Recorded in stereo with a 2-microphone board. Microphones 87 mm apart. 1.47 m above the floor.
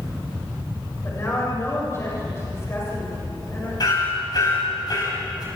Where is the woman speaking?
30° left (ahead or behind), 7 m.